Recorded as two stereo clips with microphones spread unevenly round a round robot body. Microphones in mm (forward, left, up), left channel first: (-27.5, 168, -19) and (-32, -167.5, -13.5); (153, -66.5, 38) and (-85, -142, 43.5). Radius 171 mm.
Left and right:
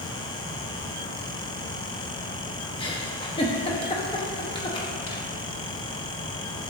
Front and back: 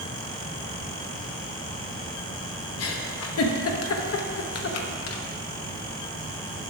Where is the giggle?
15° left, 0.8 m.